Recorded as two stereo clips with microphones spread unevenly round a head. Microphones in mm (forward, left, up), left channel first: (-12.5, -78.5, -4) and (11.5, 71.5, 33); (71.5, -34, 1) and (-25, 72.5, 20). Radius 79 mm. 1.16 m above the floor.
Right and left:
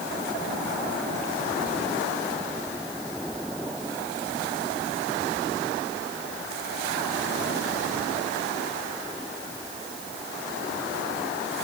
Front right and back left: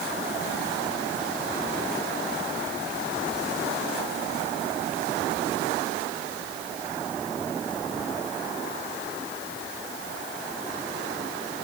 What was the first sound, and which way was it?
Only background noise.